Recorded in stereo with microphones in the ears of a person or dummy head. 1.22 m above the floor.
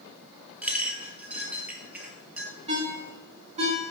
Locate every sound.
0.6 s a clink: 5° right (ahead or behind), 1.0 m
2.7 s a ringtone: 25° right (ahead or behind), 2.0 m